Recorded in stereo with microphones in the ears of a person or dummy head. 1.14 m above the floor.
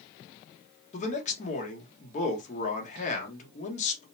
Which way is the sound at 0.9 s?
45° left (ahead or behind).